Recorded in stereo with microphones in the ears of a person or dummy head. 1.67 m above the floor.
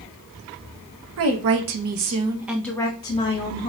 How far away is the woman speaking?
About 0.9 m.